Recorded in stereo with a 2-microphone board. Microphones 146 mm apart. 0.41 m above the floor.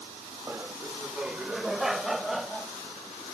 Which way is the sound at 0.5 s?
15° right (ahead or behind).